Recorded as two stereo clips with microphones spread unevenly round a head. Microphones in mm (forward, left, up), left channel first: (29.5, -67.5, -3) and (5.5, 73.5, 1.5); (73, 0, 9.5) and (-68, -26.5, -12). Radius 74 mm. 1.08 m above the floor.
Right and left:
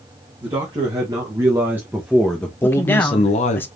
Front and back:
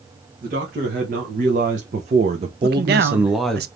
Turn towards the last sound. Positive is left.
turn(degrees=-160)